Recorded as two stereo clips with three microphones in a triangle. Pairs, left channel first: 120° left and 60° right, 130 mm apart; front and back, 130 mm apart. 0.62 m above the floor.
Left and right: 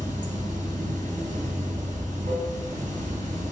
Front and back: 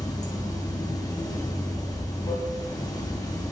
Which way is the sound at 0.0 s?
60° right.